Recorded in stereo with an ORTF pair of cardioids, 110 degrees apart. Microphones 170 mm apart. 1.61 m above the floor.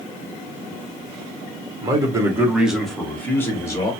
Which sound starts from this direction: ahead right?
A man speaking, at 1.8 s.